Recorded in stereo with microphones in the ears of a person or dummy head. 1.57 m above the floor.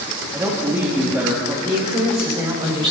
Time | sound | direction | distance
0.3 | a woman speaking | 15° right (ahead or behind) | 3 m
1.6 | a man speaking | 30° right (ahead or behind) | 5.5 m